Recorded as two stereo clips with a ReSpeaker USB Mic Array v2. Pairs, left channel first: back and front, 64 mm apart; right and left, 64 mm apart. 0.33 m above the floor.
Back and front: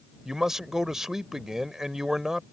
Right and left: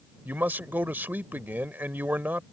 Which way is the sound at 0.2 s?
80° left.